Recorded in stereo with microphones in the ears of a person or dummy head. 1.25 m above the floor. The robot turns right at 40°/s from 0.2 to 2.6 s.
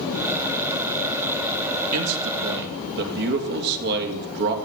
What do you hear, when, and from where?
1.9 s a man speaking: 80° right, 2.5 m; by 4.5 s 60° right (ahead or behind), 2.5 m